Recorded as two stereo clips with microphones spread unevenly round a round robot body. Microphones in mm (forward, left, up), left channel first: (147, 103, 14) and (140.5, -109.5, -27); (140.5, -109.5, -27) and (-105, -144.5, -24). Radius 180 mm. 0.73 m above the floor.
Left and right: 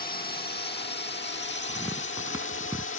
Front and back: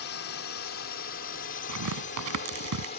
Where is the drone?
40° left; by 3.0 s 70° left.